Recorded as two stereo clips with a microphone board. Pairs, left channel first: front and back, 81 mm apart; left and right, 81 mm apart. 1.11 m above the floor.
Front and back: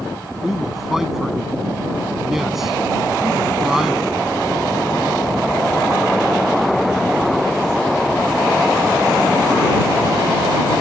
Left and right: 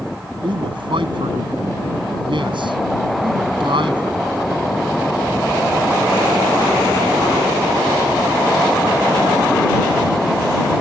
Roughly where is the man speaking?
Right.